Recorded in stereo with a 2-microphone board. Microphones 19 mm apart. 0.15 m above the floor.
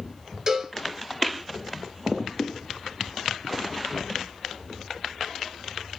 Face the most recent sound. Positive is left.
turn(degrees=-30)  # may be behind; listen again after turning